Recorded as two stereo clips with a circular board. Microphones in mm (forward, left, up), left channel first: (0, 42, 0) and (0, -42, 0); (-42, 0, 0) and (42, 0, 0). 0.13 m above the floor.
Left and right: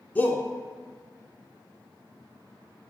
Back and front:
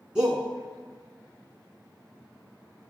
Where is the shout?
55° left, 1.1 m.